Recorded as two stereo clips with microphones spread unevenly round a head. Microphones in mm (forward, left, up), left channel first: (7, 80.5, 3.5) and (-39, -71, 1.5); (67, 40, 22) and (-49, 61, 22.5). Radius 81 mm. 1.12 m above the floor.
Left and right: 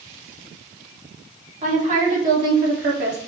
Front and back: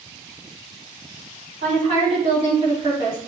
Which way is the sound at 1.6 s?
150° right.